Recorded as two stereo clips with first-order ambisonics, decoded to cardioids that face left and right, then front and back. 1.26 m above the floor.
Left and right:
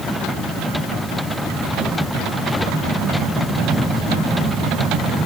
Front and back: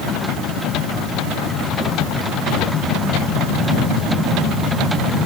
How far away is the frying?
I don't hear frying.